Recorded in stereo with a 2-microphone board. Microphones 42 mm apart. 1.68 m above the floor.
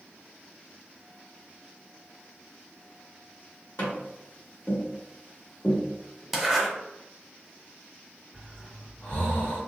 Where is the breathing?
40° left (ahead or behind), 1.9 m.